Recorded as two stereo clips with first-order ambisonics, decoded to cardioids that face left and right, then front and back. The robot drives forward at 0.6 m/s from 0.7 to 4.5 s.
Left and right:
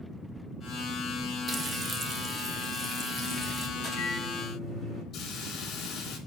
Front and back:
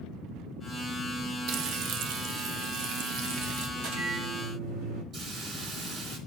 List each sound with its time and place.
1.5 s frying: 155° right, 0.6 m; by 3.7 s 175° right, 1.8 m
3.8 s a microwave: 170° left, 6.5 m
5.1 s a hiss: 135° left, 2.5 m